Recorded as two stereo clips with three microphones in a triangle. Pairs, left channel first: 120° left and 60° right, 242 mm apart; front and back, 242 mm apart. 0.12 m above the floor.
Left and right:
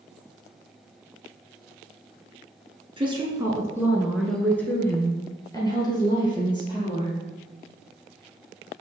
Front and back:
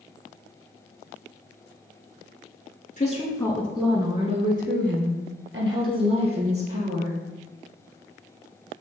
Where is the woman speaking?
10° right, 1.2 m; by 7.2 s 170° right, 3 m.